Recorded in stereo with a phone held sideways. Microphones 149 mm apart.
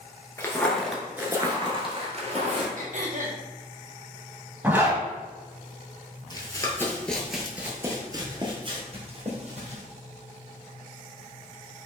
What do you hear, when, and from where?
0.4 s footsteps: 20° left (ahead or behind), 1.0 m; by 2.7 s 55° right (ahead or behind), 1.4 m
2.8 s throat clearing: 60° right (ahead or behind), 0.8 m
4.6 s a zipper: 10° right (ahead or behind), 1.4 m
6.3 s running footsteps: 30° left (ahead or behind), 1.0 m; by 9.8 s 50° right (ahead or behind), 1.6 m